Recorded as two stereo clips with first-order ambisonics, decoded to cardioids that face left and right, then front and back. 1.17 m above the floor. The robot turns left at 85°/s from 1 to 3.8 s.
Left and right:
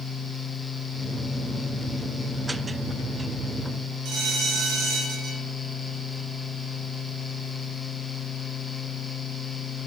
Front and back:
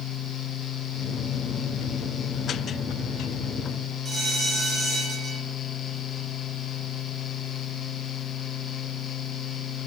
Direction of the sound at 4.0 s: 115° right.